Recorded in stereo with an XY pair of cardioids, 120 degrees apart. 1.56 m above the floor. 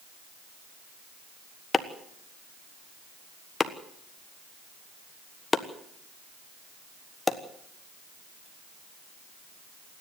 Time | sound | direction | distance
1.7 | chopping | 20° left | 1.3 m